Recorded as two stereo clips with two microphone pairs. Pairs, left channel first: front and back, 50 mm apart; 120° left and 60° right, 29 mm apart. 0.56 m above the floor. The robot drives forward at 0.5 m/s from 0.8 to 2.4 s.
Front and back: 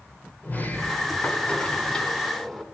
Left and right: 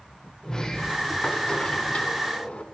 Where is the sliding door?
50° left, 1.5 m; by 2.6 s 85° left, 1.2 m.